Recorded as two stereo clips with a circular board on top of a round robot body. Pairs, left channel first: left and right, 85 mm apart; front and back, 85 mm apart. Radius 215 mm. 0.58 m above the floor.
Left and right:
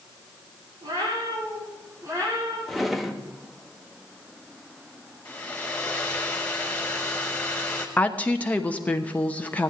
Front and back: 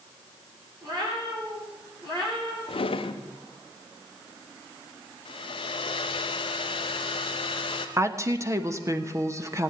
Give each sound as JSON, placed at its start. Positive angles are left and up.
{"t": 0.8, "sound": "a cat meowing", "azimuth_deg": -140, "distance_m": 6.0}
{"t": 2.7, "sound": "a drawer", "azimuth_deg": 0, "distance_m": 1.0}
{"t": 5.2, "sound": "a hair dryer", "azimuth_deg": 15, "distance_m": 0.7}
{"t": 8.0, "sound": "a woman speaking", "azimuth_deg": 155, "distance_m": 1.4}